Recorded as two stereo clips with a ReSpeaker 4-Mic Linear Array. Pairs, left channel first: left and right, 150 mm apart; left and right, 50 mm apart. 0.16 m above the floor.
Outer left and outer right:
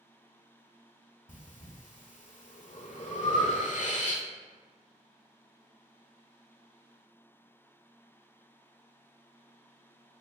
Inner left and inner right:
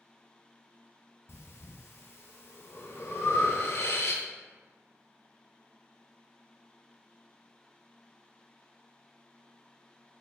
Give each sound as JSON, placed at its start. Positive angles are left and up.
{"t": 1.3, "sound": "breathing", "side_deg": 60, "distance_m": 0.6}